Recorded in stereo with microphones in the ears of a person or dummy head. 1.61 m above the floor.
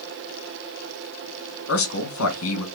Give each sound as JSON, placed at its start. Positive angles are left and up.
{"t": 1.7, "sound": "a man speaking", "side_deg": 80, "distance_m": 2.0}